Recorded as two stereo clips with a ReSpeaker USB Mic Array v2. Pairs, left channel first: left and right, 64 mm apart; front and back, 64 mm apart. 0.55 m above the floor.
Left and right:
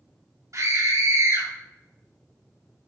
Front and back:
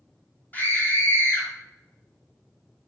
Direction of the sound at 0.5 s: 65° right.